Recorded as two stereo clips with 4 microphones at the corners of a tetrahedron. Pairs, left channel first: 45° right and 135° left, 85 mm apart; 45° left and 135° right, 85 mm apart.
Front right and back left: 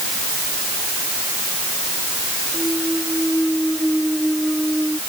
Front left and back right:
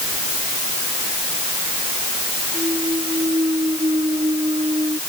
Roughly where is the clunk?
Behind right.